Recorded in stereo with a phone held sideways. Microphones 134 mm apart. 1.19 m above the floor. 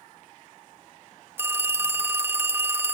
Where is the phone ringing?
15° right (ahead or behind), 0.7 m.